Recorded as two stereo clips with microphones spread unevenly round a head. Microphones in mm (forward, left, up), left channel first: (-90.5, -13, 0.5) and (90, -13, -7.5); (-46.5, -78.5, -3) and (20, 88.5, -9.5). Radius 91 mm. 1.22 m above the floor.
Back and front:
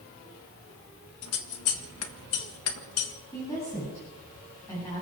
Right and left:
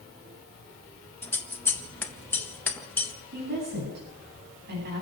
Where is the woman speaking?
105° left, 9 m.